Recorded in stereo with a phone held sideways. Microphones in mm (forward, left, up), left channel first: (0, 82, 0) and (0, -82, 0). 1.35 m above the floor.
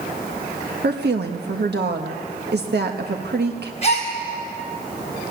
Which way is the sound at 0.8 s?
80° right.